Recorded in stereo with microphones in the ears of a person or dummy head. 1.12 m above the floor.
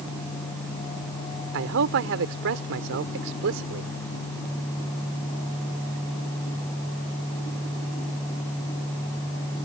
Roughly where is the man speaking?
Right.